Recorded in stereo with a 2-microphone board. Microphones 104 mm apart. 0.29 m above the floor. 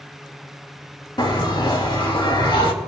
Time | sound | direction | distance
1.2 | a bell | 50° left (ahead or behind) | 2.5 m